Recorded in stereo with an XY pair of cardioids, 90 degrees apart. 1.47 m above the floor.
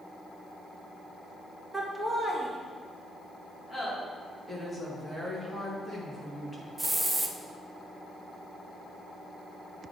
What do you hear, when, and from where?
1.7 s laughter: 20° right, 1.9 m; by 3.9 s 25° left, 4 m
4.5 s a woman speaking: 15° left, 2.5 m
6.8 s a hiss: 10° right, 0.7 m